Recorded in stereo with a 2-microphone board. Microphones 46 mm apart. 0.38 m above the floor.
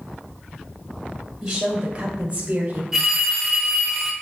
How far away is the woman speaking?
About 1.6 m.